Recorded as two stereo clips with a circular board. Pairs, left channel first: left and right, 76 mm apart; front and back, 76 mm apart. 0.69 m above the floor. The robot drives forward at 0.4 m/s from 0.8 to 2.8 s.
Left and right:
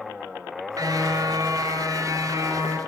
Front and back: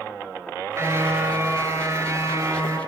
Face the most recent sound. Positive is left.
turn(degrees=-130)